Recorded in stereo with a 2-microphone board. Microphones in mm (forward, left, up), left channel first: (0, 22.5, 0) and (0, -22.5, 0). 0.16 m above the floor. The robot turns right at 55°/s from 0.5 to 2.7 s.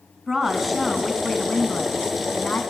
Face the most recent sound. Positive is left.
turn(degrees=105)